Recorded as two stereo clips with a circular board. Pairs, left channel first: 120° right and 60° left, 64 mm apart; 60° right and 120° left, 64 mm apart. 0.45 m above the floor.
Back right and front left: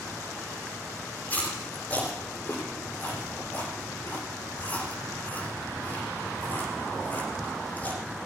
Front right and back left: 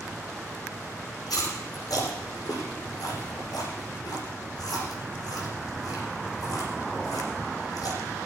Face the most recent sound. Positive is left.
turn(degrees=-55)